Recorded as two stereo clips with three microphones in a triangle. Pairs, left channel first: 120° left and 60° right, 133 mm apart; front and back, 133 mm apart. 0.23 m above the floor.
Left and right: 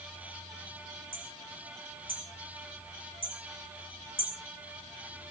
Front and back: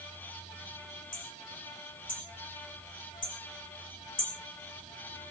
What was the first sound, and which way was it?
Hammering, 10° right.